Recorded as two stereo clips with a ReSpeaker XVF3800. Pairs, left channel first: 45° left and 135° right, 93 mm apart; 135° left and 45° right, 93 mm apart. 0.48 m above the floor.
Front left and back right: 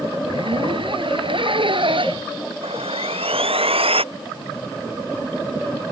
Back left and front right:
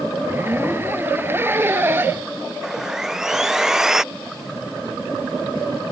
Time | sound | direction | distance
0.2 | a zipper | 110° right | ?
2.6 | sawing | 130° right | ?